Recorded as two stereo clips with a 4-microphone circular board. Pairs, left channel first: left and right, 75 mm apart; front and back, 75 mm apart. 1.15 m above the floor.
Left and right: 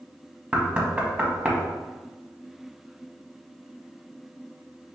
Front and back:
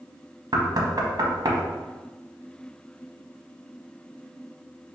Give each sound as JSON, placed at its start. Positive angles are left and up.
{"t": 0.5, "sound": "knocking", "azimuth_deg": -160, "distance_m": 0.8}